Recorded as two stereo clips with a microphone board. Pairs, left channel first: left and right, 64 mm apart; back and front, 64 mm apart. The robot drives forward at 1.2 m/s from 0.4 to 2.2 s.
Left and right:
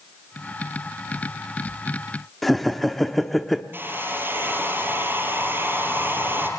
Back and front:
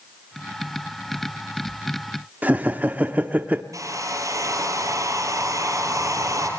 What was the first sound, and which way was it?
Laughter, 5° left.